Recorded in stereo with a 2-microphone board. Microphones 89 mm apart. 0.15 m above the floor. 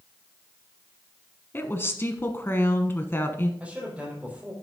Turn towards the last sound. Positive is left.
turn(degrees=-15)  # may be behind; listen again after turning